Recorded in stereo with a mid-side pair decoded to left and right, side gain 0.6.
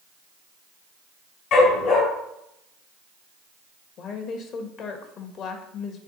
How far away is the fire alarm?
No fire alarm in this recording.